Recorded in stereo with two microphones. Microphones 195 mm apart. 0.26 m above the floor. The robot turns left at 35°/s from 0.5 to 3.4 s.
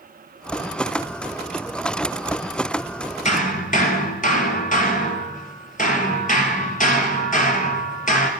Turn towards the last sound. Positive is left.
turn(degrees=45)  # may be behind; listen again after turning